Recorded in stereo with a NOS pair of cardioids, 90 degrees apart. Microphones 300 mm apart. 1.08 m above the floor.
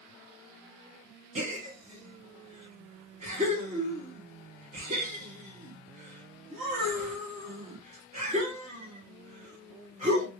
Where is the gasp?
25° right, 1.9 m.